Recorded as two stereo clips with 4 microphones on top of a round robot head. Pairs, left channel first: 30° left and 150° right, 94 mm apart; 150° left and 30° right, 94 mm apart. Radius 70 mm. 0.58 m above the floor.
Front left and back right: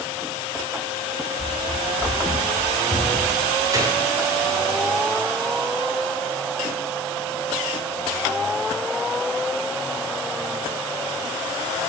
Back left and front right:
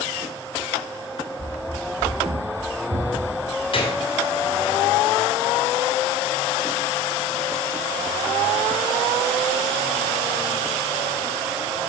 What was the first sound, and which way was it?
Running footsteps, 125° left.